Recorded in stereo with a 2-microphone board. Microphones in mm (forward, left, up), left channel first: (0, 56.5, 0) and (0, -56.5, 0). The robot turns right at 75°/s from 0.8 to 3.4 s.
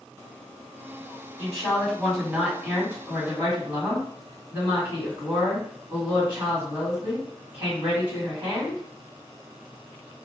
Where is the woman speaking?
15° left (ahead or behind), 1.7 m; by 8.8 s 20° right (ahead or behind), 1.7 m.